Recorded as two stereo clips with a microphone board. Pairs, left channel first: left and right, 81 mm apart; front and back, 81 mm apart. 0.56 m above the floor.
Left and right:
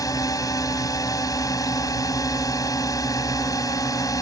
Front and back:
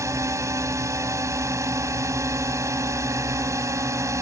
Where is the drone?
130° left.